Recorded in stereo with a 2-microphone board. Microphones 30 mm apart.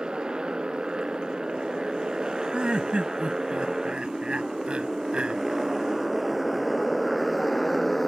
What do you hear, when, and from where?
0.0 s a motorcycle: 30° right (ahead or behind); by 8.1 s centre (ahead or behind)
2.5 s laughter: 35° right (ahead or behind)